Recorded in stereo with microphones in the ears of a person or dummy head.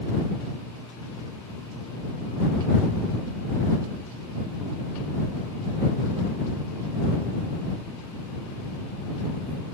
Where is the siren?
No siren in this recording.